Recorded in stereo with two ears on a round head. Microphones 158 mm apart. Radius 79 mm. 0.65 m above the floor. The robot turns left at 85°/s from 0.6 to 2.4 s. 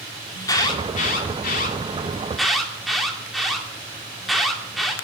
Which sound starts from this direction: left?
An alarm, at 0.3 s.